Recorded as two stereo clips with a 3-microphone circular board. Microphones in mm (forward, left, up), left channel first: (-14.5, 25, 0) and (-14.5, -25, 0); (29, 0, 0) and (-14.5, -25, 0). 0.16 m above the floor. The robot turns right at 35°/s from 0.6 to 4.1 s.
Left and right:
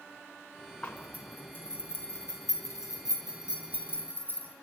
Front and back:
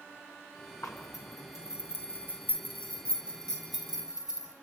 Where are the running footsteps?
No running footsteps in this recording.